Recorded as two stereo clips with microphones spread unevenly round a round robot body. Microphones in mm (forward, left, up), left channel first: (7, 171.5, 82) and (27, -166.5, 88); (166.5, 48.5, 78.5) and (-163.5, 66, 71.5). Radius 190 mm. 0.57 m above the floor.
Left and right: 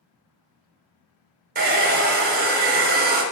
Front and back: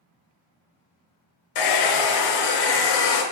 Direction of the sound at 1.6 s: 20° right.